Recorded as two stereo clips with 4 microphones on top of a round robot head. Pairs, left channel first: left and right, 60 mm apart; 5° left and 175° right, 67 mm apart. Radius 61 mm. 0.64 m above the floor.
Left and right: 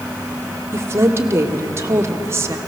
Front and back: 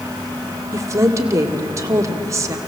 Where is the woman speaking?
135° right, 2 m.